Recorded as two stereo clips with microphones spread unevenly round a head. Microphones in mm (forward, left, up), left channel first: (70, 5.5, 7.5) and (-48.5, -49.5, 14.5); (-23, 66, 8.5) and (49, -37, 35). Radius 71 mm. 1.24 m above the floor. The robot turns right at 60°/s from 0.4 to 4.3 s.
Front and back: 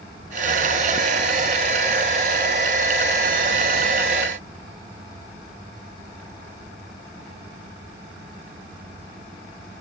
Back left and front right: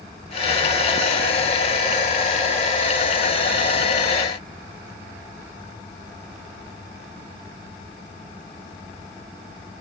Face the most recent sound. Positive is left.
No sound to turn to.